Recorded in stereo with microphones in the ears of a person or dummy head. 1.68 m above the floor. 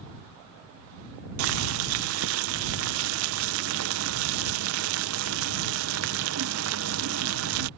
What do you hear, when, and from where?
1.4 s boiling: 75° right (ahead or behind)